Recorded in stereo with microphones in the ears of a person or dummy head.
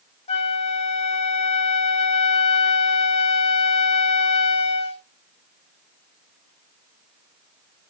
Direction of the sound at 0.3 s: 35° left (ahead or behind).